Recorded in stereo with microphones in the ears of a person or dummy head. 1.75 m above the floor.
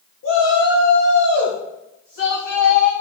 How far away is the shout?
About 1.7 m.